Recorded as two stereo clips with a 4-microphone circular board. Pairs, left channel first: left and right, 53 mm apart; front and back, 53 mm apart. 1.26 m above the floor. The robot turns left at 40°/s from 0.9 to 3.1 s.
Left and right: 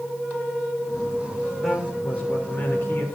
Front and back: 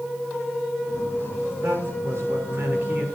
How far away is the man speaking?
About 3.5 m.